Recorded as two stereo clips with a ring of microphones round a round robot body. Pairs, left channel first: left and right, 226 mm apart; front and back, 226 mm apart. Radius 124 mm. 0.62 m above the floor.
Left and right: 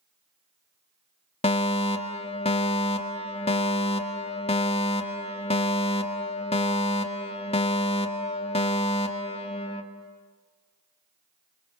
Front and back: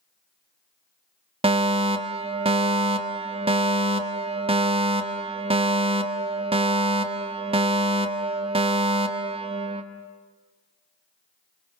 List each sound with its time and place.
1.4 s a fire alarm: 135° left, 1.8 m